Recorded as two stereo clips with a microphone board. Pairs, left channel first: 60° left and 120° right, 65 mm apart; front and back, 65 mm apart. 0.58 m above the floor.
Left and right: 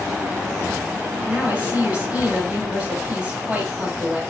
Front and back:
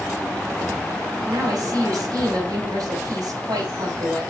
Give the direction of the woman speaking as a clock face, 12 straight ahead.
6 o'clock.